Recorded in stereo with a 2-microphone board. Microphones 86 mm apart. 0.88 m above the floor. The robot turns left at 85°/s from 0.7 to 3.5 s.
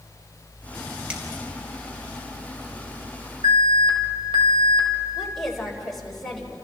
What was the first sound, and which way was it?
A finger snap, 15° right (ahead or behind).